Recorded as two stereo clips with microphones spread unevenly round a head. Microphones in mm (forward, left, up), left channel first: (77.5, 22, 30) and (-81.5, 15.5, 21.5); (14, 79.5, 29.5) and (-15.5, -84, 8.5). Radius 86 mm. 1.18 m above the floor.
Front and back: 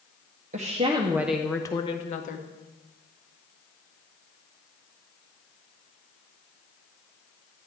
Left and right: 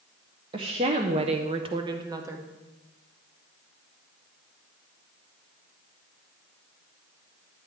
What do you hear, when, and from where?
0.5 s a woman speaking: 150° right, 0.9 m; by 2.5 s 30° right, 1.2 m